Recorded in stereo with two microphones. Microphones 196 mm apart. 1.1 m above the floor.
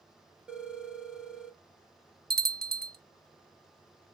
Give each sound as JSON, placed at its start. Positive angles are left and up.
{"t": 0.5, "sound": "a phone ringing", "side_deg": -5, "distance_m": 1.2}
{"t": 2.3, "sound": "a bell", "side_deg": -55, "distance_m": 0.7}